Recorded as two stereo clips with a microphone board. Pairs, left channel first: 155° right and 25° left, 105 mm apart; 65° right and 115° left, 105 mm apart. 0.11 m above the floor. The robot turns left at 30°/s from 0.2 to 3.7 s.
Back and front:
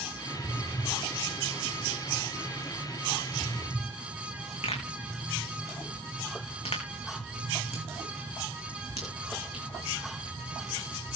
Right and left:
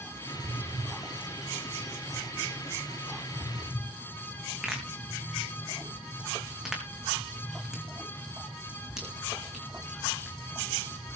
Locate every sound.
4.6 s a pop: 165° right, 5 m